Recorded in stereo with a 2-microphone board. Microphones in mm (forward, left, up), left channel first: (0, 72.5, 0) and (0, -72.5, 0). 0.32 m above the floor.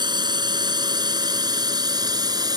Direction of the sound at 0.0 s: 30° right (ahead or behind).